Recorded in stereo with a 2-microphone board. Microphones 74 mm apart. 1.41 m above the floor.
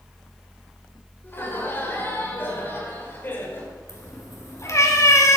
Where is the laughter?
30° left (ahead or behind), 5.5 m.